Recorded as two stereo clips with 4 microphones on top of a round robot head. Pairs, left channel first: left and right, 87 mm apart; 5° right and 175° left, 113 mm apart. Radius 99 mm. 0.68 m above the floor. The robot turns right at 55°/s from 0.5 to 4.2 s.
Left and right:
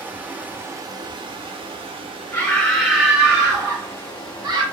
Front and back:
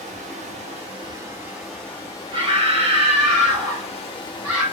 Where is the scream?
155° left, 3 m; by 4.6 s 105° right, 3 m.